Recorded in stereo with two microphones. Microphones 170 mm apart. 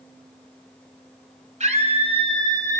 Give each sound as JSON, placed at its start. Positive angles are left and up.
{"t": 1.6, "sound": "a scream", "side_deg": -45, "distance_m": 2.0}